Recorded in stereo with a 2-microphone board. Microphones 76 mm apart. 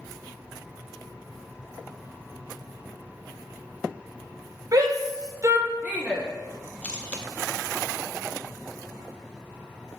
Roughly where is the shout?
Right.